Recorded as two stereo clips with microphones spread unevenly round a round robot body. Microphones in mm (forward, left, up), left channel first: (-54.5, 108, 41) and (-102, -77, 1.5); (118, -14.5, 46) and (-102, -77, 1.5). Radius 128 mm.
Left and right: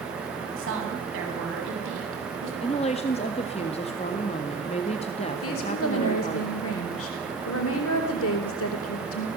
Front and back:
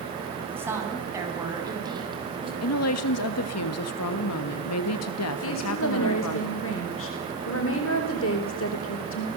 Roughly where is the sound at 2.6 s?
Ahead.